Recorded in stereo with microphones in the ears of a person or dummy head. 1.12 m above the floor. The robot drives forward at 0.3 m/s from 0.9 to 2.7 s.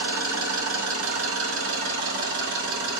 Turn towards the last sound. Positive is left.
turn(degrees=-60)  # may be behind; listen again after turning